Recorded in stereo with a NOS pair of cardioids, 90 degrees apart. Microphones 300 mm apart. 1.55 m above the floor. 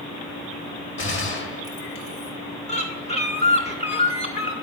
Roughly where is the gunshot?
Ahead left.